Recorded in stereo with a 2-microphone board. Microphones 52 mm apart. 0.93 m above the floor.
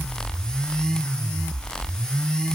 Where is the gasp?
No gasp in this recording.